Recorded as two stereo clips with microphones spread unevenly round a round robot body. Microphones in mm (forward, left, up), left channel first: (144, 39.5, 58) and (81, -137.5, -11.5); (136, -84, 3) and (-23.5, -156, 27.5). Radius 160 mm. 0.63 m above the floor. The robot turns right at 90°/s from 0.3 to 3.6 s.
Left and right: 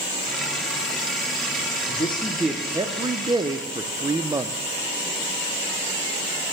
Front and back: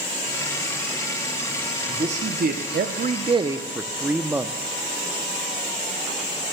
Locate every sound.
1.9 s a man speaking: 135° left, 0.6 m; by 4.5 s 70° right, 0.6 m